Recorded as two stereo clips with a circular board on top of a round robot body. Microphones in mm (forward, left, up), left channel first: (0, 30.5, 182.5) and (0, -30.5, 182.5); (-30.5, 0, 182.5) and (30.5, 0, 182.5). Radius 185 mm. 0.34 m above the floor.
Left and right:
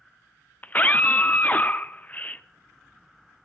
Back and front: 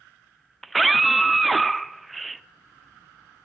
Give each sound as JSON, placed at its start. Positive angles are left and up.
{"t": 0.6, "sound": "a scream", "azimuth_deg": 90, "distance_m": 0.9}